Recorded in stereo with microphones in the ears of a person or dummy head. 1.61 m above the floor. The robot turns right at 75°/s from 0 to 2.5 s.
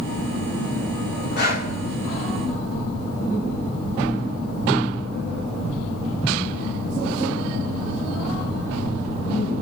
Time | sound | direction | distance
1.4 | breathing | 50° left (ahead or behind) | 1.7 m